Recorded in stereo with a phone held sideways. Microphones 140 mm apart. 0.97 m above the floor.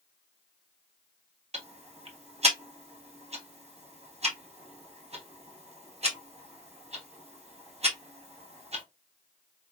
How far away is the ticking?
About 1.4 m.